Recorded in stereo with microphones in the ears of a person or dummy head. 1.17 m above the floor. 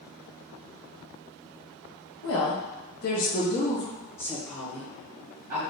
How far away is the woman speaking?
About 1.0 m.